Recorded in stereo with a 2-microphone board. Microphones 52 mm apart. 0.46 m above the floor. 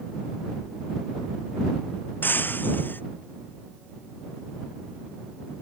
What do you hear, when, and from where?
2.2 s breaking glass: 40° left (ahead or behind)